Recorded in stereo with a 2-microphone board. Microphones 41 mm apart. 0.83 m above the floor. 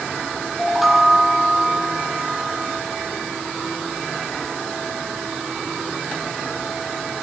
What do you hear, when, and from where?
0.6 s a chime: 5° right (ahead or behind), 2.5 m